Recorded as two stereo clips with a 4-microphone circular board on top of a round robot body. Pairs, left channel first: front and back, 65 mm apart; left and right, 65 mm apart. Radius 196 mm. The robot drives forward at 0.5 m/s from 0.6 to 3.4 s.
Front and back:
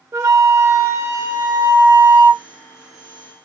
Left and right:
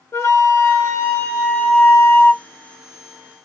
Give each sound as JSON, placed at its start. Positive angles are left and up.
{"t": 0.1, "sound": "a flute", "azimuth_deg": 140, "distance_m": 1.3}